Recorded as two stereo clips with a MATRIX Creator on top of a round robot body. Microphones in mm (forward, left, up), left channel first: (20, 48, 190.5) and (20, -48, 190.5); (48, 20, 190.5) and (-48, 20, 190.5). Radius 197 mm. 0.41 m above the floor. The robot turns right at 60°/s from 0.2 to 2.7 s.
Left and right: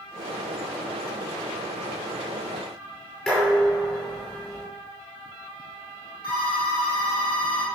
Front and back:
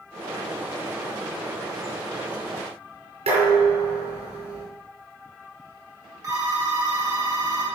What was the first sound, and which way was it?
Dishes clattering, 170° left.